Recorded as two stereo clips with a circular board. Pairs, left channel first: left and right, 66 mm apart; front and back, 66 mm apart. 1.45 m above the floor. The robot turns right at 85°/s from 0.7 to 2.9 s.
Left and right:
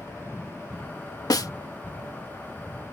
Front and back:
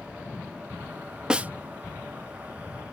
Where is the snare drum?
100° left; by 1.5 s 120° left.